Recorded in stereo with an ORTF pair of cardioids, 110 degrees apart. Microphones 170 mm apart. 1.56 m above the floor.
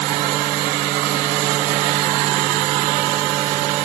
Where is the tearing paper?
I don't hear tearing paper.